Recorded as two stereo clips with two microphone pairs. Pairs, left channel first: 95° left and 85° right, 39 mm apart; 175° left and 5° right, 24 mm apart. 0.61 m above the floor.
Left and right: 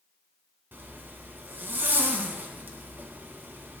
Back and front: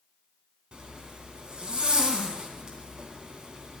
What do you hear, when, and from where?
0.7 s a zipper: 55° right, 2.5 m